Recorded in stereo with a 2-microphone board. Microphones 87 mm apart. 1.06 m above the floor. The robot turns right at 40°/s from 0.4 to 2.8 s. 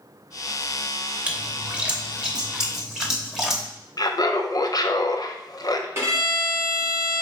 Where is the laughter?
50° left (ahead or behind), 0.5 m.